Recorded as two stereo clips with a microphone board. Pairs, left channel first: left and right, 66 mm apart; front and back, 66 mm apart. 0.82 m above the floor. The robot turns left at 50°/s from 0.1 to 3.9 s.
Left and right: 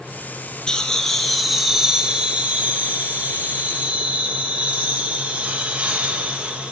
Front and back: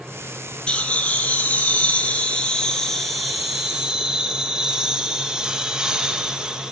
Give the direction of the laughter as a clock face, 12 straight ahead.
11 o'clock.